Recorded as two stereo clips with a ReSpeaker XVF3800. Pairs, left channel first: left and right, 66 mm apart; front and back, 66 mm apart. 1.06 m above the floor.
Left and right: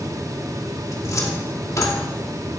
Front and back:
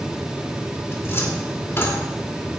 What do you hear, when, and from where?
0.9 s a cupboard door: 50° left, 2.5 m